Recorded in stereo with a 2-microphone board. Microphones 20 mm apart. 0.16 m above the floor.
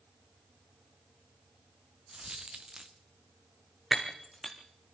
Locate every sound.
2.1 s a dropped coin: 40° right (ahead or behind), 1.3 m
3.9 s breaking glass: 5° right (ahead or behind), 2.5 m